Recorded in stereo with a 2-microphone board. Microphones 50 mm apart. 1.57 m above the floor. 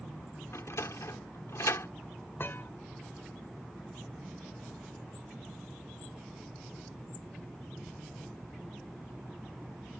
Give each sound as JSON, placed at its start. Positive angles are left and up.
{"t": 0.5, "sound": "a sliding door", "side_deg": 75}
{"t": 2.4, "sound": "a thud", "side_deg": 50}